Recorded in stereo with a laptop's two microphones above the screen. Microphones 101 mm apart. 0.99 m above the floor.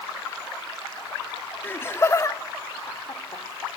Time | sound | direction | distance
1.6 | laughter | 20° left (ahead or behind) | 2 m